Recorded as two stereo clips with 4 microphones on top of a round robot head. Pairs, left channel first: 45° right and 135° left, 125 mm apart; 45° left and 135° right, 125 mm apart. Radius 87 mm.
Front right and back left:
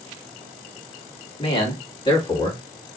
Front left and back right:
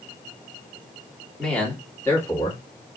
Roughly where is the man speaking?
Ahead right.